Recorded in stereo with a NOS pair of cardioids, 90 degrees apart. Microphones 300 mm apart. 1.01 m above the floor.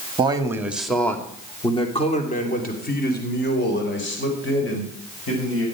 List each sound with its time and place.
0.2 s a man speaking: 15° right, 1.9 m; by 5.7 s 45° left, 5.5 m